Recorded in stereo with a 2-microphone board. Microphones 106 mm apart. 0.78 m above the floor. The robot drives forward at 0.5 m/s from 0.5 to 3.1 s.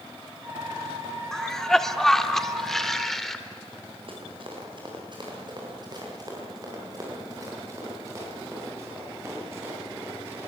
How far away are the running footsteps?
About 7 m.